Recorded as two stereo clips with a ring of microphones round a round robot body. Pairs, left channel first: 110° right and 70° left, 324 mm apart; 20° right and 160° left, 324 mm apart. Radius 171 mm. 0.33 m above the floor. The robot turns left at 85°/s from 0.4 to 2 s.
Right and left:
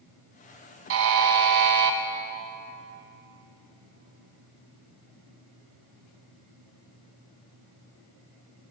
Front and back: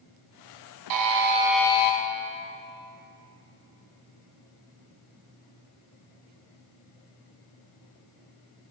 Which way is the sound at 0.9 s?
125° left.